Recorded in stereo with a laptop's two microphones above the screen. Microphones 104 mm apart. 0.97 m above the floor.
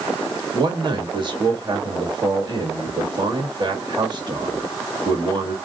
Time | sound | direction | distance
0.5 | a man speaking | 45° right (ahead or behind) | 1.7 m